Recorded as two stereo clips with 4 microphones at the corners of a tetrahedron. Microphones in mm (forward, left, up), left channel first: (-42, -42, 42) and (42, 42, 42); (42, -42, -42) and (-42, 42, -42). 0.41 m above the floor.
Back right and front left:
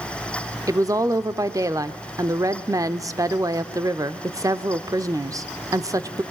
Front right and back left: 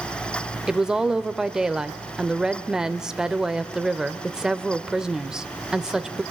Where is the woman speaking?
55° left, 0.8 m.